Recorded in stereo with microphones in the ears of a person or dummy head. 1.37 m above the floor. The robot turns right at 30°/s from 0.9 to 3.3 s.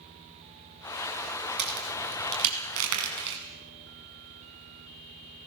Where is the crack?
60° right (ahead or behind), 5.5 m; by 3.4 s 65° right (ahead or behind), 5.5 m.